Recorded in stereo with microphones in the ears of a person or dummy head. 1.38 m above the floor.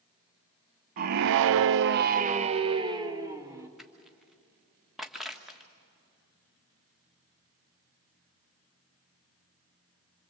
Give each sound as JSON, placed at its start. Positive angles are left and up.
{"t": 1.0, "sound": "a scream", "side_deg": -45, "distance_m": 0.8}
{"t": 3.8, "sound": "crushing", "side_deg": 0, "distance_m": 1.5}